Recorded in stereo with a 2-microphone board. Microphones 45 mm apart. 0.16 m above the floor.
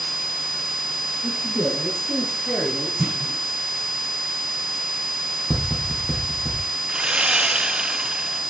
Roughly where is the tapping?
Centre.